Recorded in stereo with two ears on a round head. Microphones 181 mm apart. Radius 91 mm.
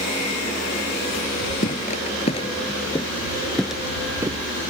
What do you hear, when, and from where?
1.6 s footsteps: 40° left (ahead or behind); by 4.4 s 20° right (ahead or behind)